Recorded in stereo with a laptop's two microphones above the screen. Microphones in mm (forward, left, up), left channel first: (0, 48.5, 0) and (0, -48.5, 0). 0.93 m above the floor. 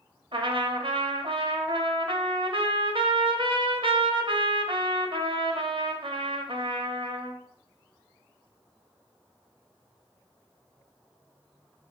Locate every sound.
0.3 s a trumpet: 65° right (ahead or behind), 0.5 m